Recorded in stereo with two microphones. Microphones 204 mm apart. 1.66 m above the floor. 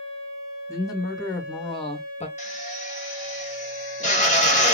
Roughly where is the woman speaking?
Centre.